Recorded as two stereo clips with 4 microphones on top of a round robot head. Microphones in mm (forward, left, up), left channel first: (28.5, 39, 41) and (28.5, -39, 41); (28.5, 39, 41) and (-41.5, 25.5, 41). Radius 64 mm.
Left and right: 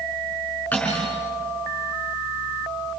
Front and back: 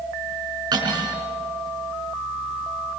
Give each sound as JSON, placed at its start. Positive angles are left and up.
{"t": 0.7, "sound": "cutlery clinking", "azimuth_deg": 165, "distance_m": 6.0}